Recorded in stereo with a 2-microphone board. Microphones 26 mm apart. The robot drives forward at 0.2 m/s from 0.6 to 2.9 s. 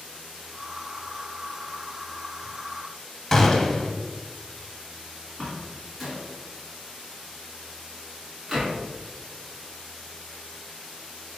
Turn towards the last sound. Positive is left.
turn(degrees=0)  # may be behind; listen again after turning